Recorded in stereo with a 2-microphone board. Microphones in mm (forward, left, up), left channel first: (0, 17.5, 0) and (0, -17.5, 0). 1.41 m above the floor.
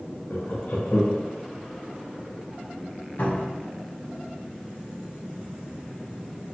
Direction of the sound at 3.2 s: 60° left (ahead or behind).